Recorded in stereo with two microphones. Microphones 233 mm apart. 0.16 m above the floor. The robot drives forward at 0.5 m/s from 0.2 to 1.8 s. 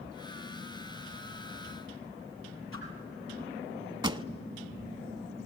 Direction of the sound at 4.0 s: 20° right (ahead or behind).